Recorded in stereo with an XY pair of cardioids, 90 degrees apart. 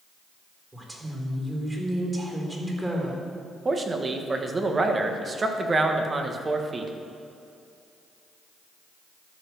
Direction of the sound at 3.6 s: 35° right.